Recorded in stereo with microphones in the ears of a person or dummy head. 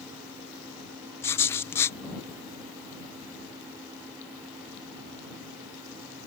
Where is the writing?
10° left (ahead or behind).